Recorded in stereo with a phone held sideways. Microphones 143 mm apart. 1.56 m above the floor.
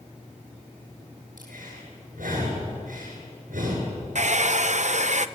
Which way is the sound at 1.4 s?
80° right.